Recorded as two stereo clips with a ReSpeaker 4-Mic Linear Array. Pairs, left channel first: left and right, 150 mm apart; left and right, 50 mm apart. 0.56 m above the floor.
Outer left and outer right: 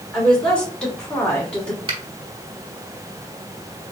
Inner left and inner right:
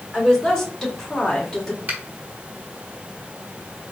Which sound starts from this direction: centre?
A woman speaking, at 0.1 s.